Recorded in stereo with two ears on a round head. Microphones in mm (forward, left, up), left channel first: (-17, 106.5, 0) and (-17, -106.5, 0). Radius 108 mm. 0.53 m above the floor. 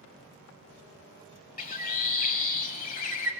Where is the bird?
35° left (ahead or behind), 1.1 m.